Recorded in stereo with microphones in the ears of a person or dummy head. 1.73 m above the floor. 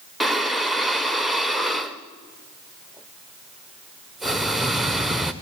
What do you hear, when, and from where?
0.2 s breathing: centre (ahead or behind), 1.0 m